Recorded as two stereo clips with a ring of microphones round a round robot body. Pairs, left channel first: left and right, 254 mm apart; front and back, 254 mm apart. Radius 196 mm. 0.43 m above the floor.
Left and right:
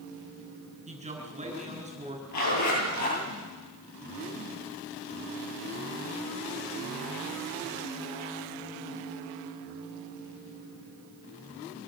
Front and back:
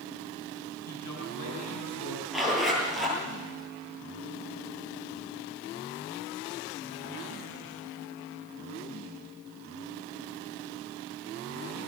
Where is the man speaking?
25° right, 6 m.